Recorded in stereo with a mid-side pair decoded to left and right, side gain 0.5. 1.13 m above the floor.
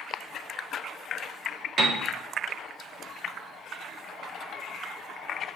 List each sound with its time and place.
1.8 s a piano: 50° right, 1.1 m